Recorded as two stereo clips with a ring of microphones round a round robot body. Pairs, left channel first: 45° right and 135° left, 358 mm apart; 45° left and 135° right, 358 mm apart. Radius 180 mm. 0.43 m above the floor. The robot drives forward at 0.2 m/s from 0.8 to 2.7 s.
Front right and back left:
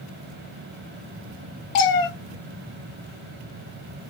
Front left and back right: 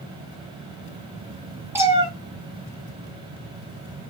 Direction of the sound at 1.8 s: 50° right.